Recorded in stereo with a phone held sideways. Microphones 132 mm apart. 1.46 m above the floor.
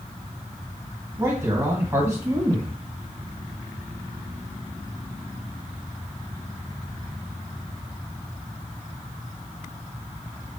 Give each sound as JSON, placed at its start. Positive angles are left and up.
{"t": 1.2, "sound": "a man speaking", "side_deg": -20, "distance_m": 1.7}